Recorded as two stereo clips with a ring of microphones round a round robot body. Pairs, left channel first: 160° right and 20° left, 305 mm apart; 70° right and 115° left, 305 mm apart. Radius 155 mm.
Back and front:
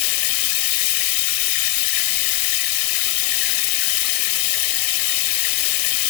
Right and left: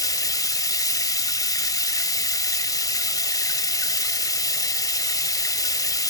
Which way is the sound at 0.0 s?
145° right.